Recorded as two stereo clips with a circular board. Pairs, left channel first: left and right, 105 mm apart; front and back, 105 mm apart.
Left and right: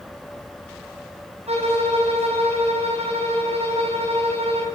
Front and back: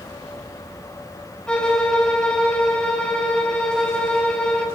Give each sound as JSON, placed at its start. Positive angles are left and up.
{"t": 1.5, "sound": "a violin", "azimuth_deg": -80, "distance_m": 4.0}